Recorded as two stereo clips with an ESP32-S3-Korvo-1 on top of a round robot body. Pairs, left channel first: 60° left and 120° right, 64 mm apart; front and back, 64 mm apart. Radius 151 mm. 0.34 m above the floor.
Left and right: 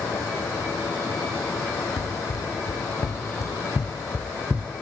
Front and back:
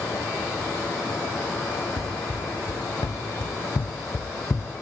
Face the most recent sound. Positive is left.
turn(degrees=-60)